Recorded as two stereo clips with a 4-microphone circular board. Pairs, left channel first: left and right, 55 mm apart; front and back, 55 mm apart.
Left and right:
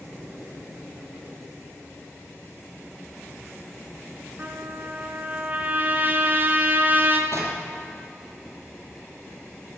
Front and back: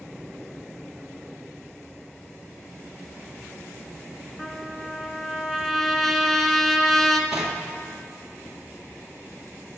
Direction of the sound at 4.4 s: 85° right.